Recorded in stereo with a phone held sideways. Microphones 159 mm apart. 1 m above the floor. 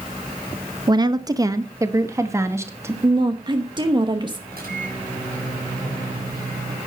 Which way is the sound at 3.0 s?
30° right (ahead or behind).